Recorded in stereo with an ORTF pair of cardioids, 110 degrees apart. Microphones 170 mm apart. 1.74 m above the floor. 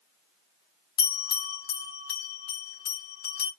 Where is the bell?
70° left, 3 m.